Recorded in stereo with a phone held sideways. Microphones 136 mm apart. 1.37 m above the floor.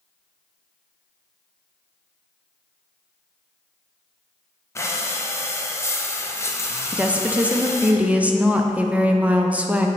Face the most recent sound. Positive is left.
turn(degrees=-10)  # may be behind; listen again after turning